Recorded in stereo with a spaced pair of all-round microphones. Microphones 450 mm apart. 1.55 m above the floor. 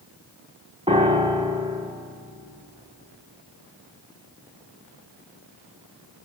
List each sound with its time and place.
0.9 s a piano: 15° right (ahead or behind), 1.5 m